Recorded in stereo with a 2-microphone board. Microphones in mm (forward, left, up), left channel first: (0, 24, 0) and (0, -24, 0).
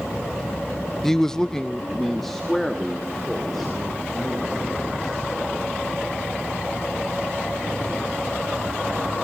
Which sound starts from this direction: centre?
A man speaking, at 1.0 s.